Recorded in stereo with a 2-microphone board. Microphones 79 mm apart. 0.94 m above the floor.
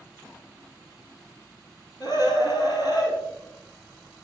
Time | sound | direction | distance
2.0 | a scream | 50° left (ahead or behind) | 8 m